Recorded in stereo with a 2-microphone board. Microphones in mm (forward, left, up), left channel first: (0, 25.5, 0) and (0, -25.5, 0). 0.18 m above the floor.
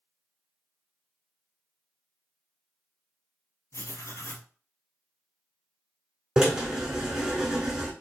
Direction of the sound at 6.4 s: 15° right (ahead or behind).